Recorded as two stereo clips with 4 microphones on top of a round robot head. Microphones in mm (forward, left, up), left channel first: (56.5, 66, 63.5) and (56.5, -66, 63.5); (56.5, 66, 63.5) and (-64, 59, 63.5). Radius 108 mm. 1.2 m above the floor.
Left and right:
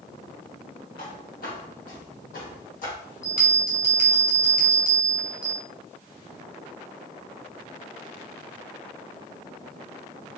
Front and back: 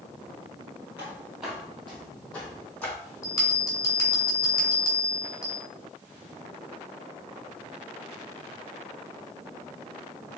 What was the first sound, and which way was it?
Footsteps, 115° left.